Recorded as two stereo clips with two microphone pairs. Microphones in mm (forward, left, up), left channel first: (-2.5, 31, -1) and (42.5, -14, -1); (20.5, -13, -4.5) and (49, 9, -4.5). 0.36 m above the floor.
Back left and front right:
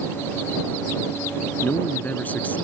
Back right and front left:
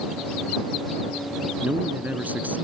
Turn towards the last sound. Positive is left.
turn(degrees=70)